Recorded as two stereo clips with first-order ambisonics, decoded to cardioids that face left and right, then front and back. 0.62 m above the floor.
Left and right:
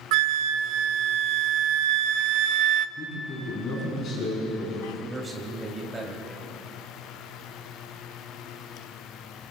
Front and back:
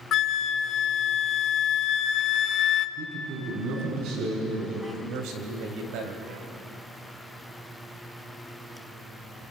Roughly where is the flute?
Ahead right.